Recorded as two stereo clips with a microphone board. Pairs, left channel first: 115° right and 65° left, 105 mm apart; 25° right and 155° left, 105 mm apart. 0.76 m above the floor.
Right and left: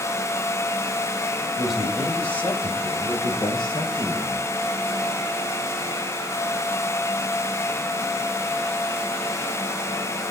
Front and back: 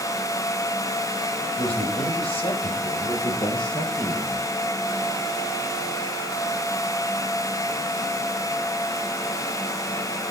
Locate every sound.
1.6 s a man speaking: 20° right, 3 m; by 4.5 s 80° right, 4.5 m